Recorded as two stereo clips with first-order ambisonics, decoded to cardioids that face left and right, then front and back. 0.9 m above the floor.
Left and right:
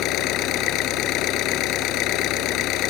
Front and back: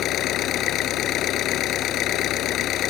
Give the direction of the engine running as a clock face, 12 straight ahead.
10 o'clock.